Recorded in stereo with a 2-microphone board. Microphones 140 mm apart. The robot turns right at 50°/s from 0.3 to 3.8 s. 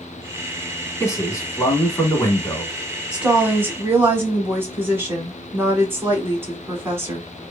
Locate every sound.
1.0 s a man speaking: 20° left (ahead or behind), 1.0 m; by 2.7 s 15° left (ahead or behind), 1.0 m
3.1 s a woman speaking: 5° right (ahead or behind), 1.0 m; by 7.3 s 15° right (ahead or behind), 1.0 m